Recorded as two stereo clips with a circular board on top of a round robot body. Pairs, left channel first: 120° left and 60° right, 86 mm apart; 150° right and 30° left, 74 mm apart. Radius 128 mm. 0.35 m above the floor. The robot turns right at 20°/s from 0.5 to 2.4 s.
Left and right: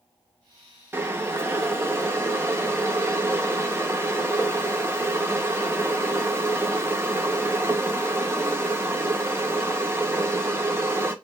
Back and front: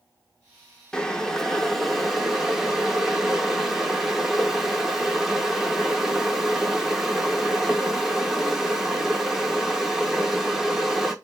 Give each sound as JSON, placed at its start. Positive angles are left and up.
{"t": 0.9, "sound": "boiling", "azimuth_deg": -80, "distance_m": 0.7}